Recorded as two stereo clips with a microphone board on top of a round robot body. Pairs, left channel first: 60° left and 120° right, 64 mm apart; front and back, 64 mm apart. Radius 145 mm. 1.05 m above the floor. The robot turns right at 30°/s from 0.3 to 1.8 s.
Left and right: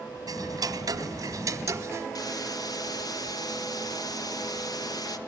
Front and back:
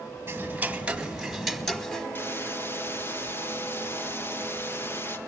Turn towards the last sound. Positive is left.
turn(degrees=55)